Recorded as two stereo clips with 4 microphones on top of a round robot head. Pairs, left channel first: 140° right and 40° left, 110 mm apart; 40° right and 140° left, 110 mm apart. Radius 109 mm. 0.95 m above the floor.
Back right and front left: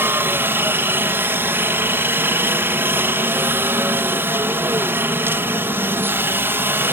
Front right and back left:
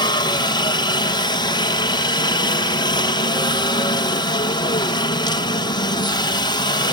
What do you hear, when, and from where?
0.0 s a helicopter: 25° right